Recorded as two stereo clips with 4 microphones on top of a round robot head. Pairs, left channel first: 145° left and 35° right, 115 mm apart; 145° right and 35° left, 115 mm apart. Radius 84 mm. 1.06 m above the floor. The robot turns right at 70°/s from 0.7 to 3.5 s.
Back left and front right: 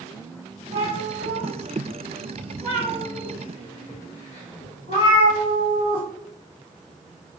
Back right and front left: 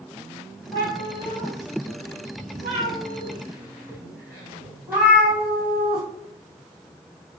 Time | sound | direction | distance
0.7 | a cat meowing | 85° right | 1.5 m